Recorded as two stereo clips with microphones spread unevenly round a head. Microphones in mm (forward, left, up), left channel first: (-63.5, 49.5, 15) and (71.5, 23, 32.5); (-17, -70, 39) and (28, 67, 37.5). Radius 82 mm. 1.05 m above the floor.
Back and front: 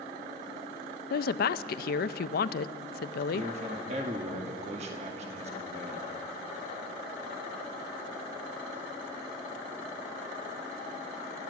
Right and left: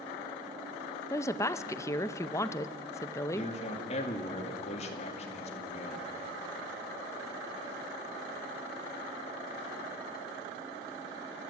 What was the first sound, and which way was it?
A woman speaking, straight behind.